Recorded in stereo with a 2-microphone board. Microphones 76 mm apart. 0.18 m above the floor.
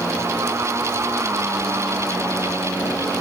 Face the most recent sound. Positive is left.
No sound to turn to.